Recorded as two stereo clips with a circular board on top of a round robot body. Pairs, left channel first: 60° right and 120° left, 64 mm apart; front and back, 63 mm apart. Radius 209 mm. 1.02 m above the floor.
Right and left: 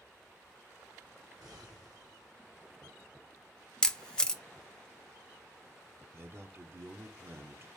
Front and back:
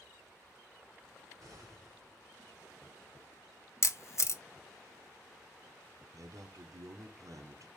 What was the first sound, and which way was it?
An explosion, 140° left.